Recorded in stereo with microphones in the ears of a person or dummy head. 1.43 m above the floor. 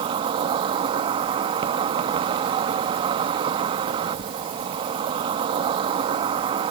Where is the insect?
30° right (ahead or behind).